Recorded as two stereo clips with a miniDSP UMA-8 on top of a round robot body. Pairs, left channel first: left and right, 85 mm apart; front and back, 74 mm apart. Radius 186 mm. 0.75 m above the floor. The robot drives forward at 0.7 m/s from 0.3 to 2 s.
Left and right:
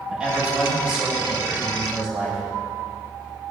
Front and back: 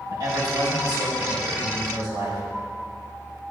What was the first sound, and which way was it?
A man speaking, 165° right.